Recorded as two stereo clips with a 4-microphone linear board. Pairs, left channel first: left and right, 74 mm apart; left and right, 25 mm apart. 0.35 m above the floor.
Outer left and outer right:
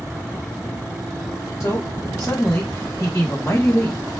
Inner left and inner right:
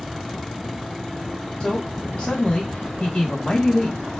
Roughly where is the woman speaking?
Left.